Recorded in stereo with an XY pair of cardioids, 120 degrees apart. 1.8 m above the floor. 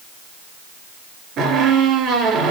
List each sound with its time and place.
1.4 s a squeak: 65° right, 4 m